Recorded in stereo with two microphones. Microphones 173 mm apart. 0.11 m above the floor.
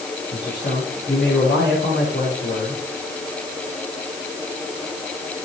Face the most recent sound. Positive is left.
turn(degrees=75)  # may be behind; listen again after turning